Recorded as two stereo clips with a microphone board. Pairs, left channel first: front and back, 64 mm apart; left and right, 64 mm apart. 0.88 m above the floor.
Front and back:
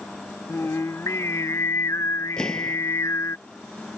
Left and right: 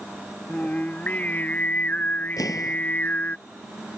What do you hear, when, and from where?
0.5 s singing: 30° left
2.4 s an explosion: 80° left